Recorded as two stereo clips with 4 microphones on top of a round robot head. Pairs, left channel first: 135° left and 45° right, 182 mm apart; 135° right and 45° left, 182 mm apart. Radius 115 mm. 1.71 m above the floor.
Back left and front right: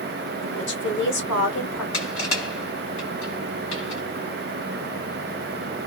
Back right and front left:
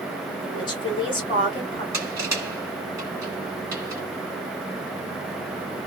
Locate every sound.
0.4 s a woman speaking: 160° left, 1.6 m
1.9 s crushing: 115° left, 1.8 m